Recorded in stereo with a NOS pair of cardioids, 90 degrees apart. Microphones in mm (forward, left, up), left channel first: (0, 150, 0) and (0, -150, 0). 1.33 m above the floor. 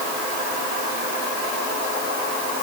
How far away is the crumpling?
I don't hear crumpling.